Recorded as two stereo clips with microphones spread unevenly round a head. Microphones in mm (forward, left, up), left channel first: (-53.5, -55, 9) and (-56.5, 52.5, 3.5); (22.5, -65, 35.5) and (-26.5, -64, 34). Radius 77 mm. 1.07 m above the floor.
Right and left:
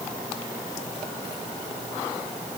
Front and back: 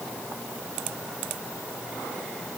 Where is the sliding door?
No sliding door in this recording.